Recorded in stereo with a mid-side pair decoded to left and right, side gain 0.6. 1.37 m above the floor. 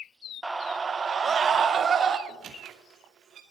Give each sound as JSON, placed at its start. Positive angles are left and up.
{"t": 0.4, "sound": "a scream", "azimuth_deg": -5, "distance_m": 1.1}
{"t": 2.3, "sound": "a squeak", "azimuth_deg": -45, "distance_m": 2.5}